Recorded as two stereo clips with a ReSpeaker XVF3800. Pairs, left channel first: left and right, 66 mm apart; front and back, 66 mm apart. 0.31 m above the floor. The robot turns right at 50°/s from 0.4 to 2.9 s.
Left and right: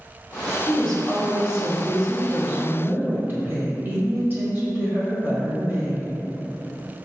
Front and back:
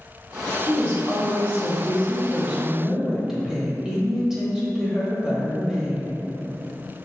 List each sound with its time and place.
0.7 s a woman speaking: 150° left, 1.1 m; by 6.1 s 95° right, 1.1 m